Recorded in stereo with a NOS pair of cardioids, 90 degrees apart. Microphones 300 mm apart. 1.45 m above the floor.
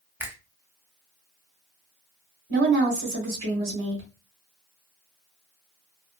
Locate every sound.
0.2 s a finger snap: 5° right, 0.8 m
2.5 s a woman speaking: 45° right, 1.5 m